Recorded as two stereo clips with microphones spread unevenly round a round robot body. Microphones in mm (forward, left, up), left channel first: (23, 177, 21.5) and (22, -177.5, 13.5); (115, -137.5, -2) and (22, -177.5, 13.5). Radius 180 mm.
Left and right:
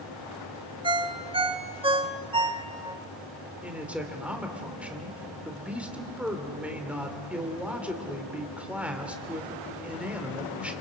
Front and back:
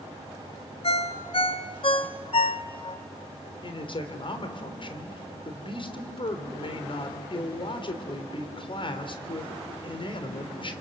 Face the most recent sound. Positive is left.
turn(degrees=-5)